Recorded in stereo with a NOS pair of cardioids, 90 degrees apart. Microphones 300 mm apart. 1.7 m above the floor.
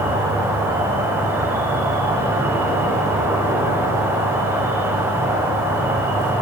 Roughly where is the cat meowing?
I don't hear a cat meowing.